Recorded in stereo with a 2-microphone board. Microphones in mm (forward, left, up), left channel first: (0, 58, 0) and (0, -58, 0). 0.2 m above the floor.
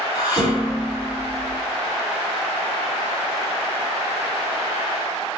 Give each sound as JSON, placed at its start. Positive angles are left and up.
{"t": 0.1, "sound": "dishes clattering", "side_deg": 45, "distance_m": 1.6}